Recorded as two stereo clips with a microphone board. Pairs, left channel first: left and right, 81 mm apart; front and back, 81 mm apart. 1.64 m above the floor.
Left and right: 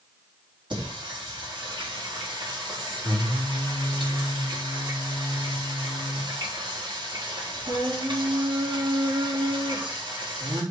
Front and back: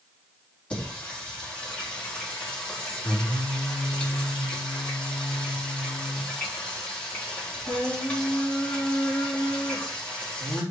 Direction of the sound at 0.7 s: 75° right.